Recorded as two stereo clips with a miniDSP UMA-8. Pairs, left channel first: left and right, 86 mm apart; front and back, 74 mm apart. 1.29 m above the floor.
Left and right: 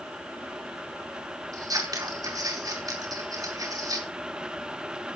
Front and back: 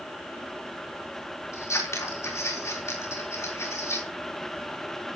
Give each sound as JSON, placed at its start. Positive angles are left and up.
{"t": 1.5, "sound": "scissors", "azimuth_deg": -45, "distance_m": 4.0}